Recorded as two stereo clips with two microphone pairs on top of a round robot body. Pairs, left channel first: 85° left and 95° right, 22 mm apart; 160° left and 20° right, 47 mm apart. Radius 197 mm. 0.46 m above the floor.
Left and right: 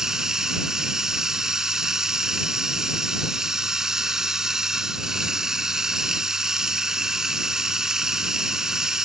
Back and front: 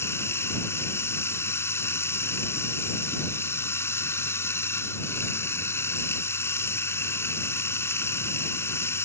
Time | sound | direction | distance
0.0 | running water | 165° right | ?